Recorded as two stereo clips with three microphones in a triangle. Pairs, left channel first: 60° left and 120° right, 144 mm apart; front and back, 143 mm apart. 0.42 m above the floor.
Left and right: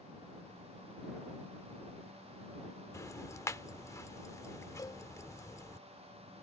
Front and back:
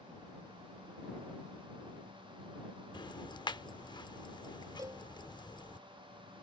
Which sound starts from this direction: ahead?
Ticking, at 2.9 s.